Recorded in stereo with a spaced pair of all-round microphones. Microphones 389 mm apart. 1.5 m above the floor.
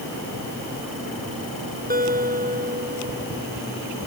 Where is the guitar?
20° right (ahead or behind).